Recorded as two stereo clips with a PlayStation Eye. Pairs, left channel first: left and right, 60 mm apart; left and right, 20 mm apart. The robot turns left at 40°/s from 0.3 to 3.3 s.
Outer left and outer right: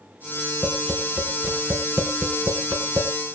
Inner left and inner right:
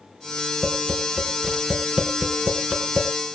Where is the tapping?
Centre (ahead or behind), 4 m; by 3.1 s 80° right, 4 m.